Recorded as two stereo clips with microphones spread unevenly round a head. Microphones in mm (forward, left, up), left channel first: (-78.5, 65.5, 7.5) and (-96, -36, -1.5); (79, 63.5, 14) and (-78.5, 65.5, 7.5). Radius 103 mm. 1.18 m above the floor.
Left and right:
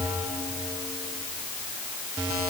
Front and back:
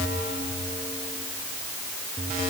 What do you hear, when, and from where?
Only background noise.